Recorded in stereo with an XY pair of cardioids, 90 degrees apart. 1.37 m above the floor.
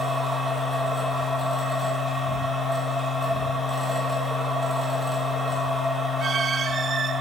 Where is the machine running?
15° right, 1.4 m.